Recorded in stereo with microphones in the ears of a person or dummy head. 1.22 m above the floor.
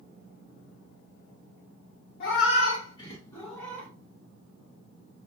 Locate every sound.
2.2 s a cat meowing: 55° left (ahead or behind), 0.9 m; by 3.9 s 10° left (ahead or behind), 1.6 m